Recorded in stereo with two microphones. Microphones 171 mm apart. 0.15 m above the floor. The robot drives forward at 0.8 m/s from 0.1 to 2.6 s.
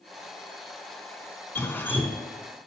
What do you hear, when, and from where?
1.6 s dripping: 15° left (ahead or behind), 0.9 m; by 2.3 s 10° left (ahead or behind), 1.2 m